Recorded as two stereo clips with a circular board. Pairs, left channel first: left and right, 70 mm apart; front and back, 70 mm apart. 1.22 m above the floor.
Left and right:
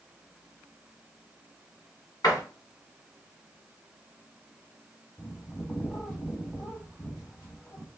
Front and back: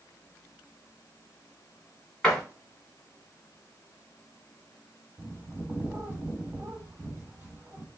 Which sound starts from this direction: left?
A door slam, at 2.2 s.